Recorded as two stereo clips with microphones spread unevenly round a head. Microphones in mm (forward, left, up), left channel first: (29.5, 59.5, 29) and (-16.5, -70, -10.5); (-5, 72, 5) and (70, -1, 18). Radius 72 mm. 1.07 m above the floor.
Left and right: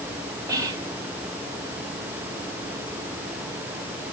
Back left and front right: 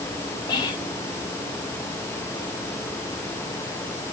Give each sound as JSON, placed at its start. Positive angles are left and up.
{"t": 0.5, "sound": "whispering", "azimuth_deg": -170, "distance_m": 1.9}